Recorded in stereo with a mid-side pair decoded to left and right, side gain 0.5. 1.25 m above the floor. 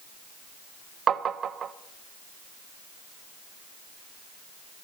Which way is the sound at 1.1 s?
45° right.